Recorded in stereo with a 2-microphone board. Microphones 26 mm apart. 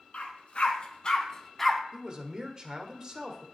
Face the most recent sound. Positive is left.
turn(degrees=-30)  # may be behind; listen again after turning